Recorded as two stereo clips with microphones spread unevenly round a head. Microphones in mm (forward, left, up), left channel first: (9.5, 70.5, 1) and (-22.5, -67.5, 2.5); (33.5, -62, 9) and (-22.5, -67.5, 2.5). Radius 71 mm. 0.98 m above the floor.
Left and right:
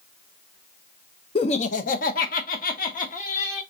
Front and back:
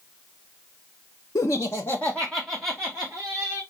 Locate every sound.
1.4 s laughter: 30° left, 0.8 m; by 3.6 s 115° left, 1.9 m